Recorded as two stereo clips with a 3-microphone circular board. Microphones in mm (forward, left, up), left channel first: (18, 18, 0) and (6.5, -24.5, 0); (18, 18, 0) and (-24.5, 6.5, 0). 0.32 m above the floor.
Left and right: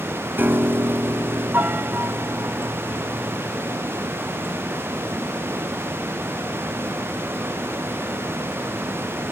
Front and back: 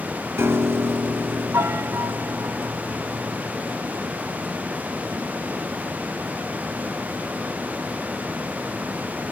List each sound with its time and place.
0.4 s a piano: 150° right, 1.1 m